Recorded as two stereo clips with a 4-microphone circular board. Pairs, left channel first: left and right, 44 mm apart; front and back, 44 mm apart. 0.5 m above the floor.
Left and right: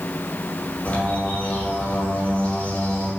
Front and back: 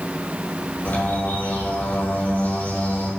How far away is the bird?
About 4.5 m.